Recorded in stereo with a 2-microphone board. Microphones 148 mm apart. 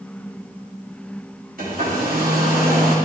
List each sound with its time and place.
1.6 s a hair dryer: 85° right, 3 m